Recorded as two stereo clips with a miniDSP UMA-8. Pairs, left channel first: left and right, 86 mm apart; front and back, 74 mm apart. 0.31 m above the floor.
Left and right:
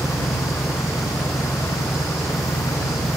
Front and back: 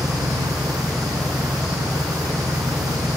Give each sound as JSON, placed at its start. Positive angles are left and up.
{"t": 0.0, "sound": "an engine running", "azimuth_deg": 140}